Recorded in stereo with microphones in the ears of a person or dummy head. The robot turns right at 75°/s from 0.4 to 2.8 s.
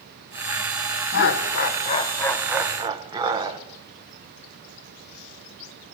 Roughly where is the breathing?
I don't hear breathing.